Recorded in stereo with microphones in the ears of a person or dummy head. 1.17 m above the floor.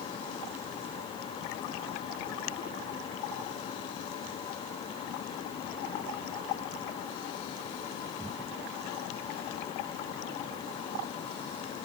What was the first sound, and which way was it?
Only background noise.